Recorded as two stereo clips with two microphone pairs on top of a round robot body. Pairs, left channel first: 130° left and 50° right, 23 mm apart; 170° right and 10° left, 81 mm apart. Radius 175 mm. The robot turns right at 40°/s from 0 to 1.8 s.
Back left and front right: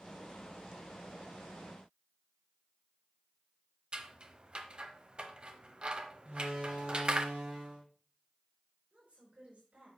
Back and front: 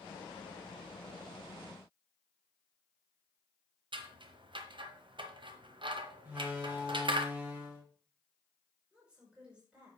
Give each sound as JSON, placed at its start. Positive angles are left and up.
{"t": 3.9, "sound": "scissors", "azimuth_deg": -5, "distance_m": 1.0}
{"t": 6.2, "sound": "a door slam", "azimuth_deg": -60, "distance_m": 3.5}
{"t": 8.9, "sound": "a woman speaking", "azimuth_deg": -65, "distance_m": 5.0}